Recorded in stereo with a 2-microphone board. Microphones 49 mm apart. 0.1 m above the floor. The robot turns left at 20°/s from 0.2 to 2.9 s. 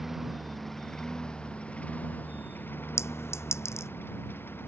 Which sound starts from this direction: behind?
A lawn mower, at 0.0 s.